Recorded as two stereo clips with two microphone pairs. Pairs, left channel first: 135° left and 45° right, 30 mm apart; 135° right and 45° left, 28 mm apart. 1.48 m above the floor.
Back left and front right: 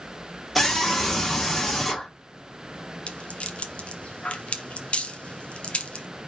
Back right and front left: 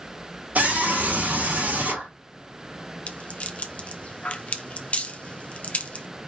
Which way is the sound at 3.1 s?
Straight behind.